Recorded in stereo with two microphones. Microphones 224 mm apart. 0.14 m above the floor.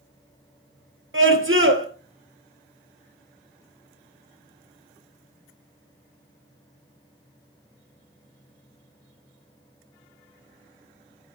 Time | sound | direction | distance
1.1 | a scream | 65° right (ahead or behind) | 2.5 m